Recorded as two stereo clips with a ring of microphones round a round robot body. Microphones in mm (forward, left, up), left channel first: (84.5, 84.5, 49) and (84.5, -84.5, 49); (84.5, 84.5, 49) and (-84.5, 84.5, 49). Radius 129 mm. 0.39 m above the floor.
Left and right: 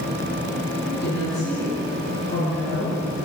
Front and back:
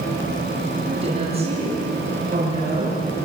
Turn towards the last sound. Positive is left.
turn(degrees=125)